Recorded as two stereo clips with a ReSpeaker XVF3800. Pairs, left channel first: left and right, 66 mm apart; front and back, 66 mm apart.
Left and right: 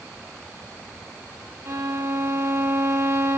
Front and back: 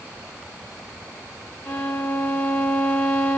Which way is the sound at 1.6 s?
55° right.